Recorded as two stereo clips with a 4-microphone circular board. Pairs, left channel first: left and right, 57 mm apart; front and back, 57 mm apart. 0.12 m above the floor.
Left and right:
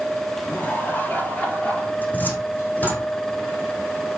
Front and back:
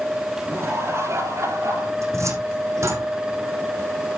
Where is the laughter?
145° left, 3.5 m; by 1.9 s 155° left, 4.5 m.